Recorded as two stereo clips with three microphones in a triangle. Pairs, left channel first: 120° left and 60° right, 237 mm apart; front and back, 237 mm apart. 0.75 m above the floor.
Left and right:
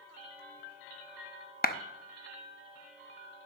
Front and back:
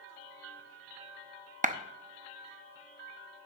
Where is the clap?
145° left, 0.6 m.